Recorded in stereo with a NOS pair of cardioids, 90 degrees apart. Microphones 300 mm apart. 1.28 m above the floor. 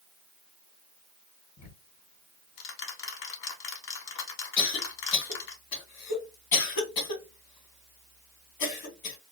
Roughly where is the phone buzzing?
I don't hear a phone buzzing.